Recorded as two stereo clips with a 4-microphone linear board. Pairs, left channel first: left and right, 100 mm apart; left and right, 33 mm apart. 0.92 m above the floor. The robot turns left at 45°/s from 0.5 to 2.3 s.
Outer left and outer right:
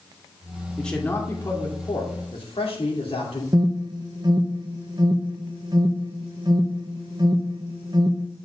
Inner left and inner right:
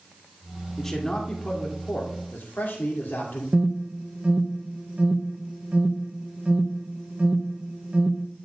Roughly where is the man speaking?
Behind.